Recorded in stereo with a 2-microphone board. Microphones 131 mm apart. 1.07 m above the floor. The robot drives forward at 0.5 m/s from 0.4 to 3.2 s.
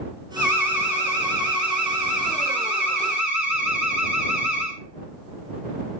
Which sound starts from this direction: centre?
An alarm, at 0.4 s.